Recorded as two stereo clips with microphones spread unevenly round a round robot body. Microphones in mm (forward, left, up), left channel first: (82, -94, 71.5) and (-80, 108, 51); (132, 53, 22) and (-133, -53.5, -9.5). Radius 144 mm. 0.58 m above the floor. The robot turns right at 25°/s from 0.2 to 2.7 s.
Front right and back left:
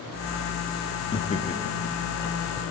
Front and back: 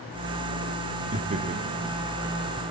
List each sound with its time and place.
1.1 s laughter: 120° right, 0.9 m; by 2.7 s 80° right, 0.9 m